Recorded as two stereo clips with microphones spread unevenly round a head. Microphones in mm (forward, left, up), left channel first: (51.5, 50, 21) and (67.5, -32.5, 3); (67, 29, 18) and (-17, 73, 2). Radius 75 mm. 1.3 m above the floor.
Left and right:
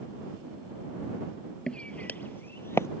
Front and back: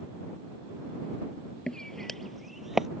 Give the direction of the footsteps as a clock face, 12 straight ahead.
11 o'clock.